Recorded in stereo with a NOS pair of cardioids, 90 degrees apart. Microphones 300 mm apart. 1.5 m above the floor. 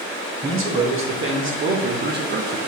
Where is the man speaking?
45° right, 2 m; by 2.6 s 35° right, 0.8 m.